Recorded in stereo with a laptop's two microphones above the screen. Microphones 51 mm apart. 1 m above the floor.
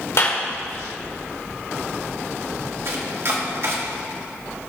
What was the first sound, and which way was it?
A clap, 65° left (ahead or behind).